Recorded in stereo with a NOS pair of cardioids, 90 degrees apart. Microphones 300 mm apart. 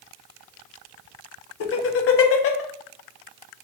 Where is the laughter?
50° left, 0.7 m.